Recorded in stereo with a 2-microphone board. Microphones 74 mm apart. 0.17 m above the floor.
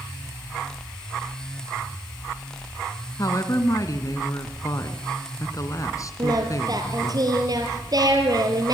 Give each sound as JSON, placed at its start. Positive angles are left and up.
{"t": 3.2, "sound": "a woman speaking", "side_deg": 45, "distance_m": 2.0}
{"t": 6.2, "sound": "singing", "side_deg": -55, "distance_m": 4.0}